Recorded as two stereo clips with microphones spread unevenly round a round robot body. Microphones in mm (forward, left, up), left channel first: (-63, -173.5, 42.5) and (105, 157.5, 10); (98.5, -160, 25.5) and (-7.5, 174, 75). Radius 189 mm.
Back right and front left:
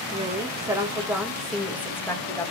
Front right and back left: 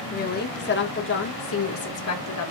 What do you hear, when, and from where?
0.1 s a woman speaking: 10° right, 3 m; by 2.5 s 35° right, 3 m